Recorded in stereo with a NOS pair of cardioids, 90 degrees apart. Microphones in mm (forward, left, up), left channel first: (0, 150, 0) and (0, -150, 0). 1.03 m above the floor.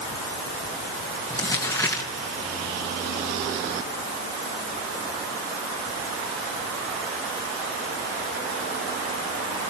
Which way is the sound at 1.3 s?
10° left.